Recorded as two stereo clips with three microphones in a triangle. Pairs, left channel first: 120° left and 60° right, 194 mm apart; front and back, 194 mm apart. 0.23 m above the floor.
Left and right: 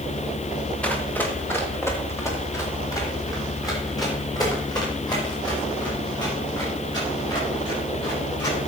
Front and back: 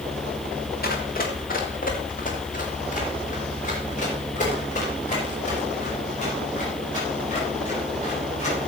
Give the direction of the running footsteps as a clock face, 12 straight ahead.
11 o'clock.